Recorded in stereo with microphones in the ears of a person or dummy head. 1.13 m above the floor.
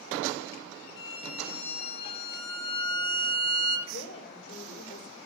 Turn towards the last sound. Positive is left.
turn(degrees=30)  # may be behind; listen again after turning